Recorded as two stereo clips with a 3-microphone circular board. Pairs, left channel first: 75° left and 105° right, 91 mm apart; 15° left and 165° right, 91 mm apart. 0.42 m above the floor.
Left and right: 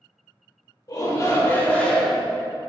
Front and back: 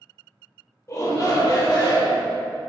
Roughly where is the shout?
Ahead left.